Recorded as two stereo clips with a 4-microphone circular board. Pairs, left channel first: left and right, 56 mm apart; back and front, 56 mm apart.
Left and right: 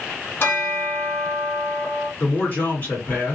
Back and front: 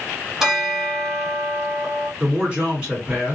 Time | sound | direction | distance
0.4 | a bell | 80° left | 0.9 m
2.2 | a man speaking | 60° left | 2.0 m